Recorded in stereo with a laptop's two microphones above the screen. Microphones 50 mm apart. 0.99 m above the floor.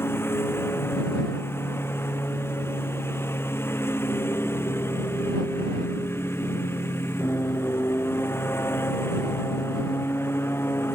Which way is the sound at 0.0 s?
50° left (ahead or behind).